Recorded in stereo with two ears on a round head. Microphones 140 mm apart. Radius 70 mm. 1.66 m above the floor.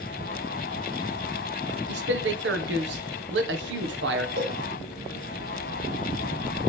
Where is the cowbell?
70° right (ahead or behind), 3 m.